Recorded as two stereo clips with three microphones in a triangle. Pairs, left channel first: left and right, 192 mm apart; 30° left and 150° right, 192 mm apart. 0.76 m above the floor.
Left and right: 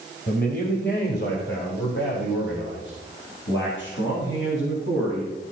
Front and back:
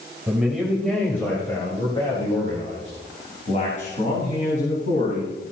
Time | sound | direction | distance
0.3 | a man speaking | 125° left | 3 m